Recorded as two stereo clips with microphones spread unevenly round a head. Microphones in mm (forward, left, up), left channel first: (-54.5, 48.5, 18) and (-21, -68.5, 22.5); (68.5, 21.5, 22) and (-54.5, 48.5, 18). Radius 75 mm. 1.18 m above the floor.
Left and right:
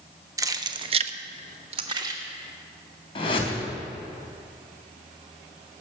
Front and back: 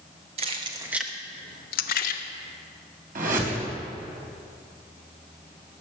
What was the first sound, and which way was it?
Keys jangling, 140° right.